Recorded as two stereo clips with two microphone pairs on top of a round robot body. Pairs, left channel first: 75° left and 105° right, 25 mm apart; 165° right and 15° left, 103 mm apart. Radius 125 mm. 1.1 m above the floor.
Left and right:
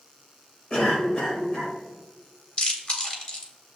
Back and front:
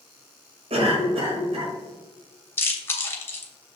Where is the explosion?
I don't hear an explosion.